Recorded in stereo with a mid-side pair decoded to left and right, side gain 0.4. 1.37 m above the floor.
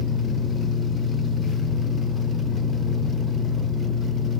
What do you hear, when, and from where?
0.0 s a fan: 45° left, 0.9 m